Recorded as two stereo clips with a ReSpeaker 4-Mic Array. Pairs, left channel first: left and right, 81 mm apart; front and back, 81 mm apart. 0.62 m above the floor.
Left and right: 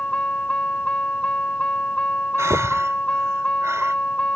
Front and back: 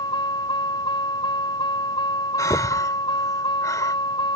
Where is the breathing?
40° right.